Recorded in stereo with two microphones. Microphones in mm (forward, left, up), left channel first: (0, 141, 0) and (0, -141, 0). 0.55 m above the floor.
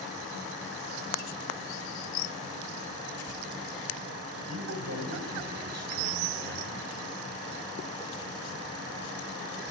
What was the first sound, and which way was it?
A man speaking, 65° right (ahead or behind).